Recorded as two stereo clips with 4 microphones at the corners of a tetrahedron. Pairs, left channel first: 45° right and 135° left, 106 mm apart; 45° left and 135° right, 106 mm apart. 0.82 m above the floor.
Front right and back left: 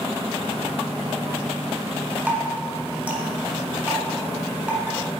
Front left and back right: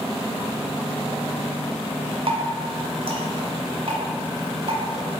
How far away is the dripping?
About 1.3 m.